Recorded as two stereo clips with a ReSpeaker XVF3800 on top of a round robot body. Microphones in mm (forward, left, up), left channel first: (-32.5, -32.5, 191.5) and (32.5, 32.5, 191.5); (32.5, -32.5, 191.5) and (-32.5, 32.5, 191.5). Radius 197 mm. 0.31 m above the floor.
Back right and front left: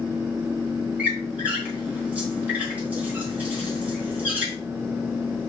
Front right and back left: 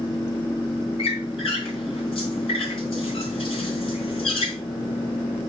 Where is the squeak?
30° right, 3 m.